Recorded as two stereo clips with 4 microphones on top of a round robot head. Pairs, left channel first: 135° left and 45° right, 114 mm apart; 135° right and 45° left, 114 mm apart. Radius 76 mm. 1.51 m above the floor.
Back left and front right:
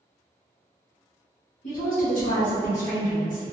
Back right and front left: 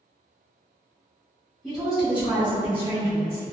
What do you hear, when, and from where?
1.6 s a woman speaking: 145° left, 0.8 m; by 3.4 s 100° left, 1.3 m